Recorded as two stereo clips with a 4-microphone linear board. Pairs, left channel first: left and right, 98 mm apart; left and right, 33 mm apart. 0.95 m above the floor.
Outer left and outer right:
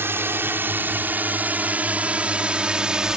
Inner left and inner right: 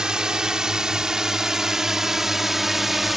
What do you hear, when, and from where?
0.0 s a drone: 25° right (ahead or behind); by 3.2 s 5° right (ahead or behind)